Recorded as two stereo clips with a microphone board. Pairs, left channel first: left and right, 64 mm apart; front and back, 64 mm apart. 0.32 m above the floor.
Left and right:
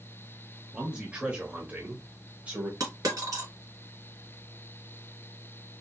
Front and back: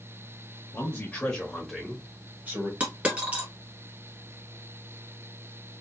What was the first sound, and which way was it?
A man speaking, 25° right.